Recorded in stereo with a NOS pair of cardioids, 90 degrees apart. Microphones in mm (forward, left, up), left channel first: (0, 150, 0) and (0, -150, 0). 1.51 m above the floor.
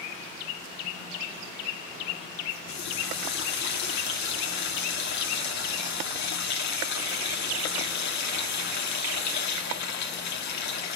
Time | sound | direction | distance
2.7 | a running tap | 65° left | 2.5 m